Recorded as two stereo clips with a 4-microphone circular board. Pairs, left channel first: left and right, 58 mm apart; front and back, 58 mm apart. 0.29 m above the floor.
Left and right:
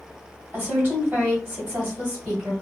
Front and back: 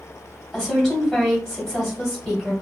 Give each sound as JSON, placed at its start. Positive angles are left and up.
{"t": 0.5, "sound": "a woman speaking", "azimuth_deg": -90, "distance_m": 1.6}